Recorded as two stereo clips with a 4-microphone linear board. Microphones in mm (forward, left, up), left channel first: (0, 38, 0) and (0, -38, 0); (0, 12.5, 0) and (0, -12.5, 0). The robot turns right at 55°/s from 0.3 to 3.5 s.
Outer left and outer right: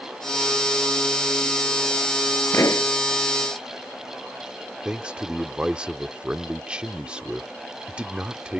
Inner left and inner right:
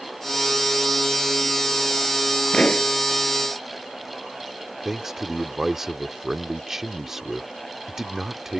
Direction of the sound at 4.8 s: 15° right (ahead or behind).